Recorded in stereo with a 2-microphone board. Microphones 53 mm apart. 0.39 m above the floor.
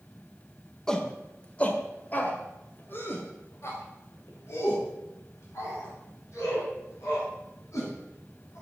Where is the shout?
10° left (ahead or behind), 1.6 m; by 8.6 s 70° left (ahead or behind), 4.5 m.